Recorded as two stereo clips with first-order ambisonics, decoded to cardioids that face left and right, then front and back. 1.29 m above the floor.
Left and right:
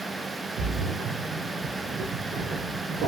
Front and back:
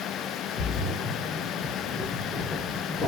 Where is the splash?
65° right, 2 m.